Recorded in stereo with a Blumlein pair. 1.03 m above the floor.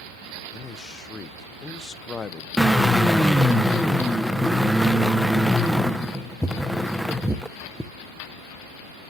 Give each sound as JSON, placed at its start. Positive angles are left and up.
{"t": 0.5, "sound": "a man speaking", "azimuth_deg": 20, "distance_m": 0.5}
{"t": 2.6, "sound": "a drill", "azimuth_deg": 0, "distance_m": 0.6}